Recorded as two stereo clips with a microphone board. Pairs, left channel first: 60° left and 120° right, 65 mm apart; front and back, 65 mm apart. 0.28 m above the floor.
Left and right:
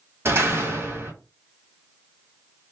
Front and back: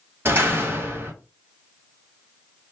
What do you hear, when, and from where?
0.2 s a door slam: 145° right, 1.5 m